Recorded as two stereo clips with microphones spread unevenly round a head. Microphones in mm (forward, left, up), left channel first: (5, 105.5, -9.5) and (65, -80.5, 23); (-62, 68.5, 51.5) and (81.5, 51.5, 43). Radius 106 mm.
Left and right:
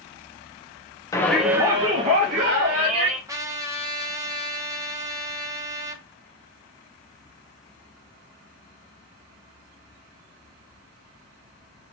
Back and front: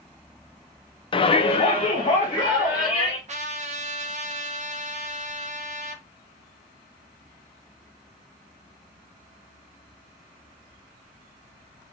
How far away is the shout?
About 0.5 m.